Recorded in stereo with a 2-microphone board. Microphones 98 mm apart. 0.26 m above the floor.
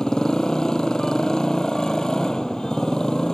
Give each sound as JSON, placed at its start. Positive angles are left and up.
{"t": 0.0, "sound": "a motorcycle", "side_deg": 5}